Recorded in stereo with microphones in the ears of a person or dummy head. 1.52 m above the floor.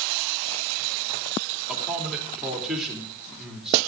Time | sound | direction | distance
1.7 | a man speaking | 5° right (ahead or behind) | 3 m